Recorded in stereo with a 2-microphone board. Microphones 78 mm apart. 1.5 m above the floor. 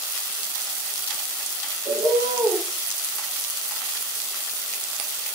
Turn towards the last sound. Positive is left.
turn(degrees=-70)  # may be behind; listen again after turning